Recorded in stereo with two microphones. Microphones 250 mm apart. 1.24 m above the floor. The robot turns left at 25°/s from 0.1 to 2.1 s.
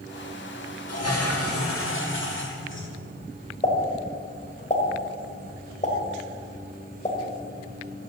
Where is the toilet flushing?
80° left, 2.5 m; by 2.9 s 50° left, 2.5 m.